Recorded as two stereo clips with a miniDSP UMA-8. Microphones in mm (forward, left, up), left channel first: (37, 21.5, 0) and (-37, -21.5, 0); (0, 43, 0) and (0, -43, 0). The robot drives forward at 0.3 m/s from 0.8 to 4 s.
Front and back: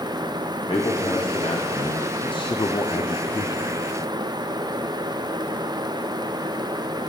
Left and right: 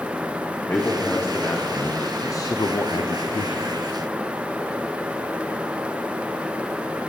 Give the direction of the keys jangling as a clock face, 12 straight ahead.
I don't hear keys jangling.